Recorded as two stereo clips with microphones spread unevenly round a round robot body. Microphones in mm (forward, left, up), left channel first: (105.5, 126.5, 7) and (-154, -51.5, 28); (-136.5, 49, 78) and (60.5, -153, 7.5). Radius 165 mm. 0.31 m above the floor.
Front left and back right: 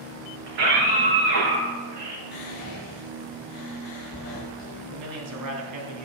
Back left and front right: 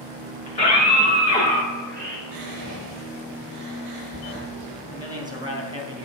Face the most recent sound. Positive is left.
turn(degrees=-115)